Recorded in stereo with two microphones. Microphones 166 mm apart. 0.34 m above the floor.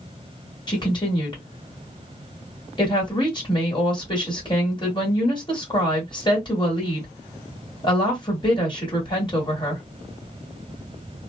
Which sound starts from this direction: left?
A woman speaking, at 0.7 s.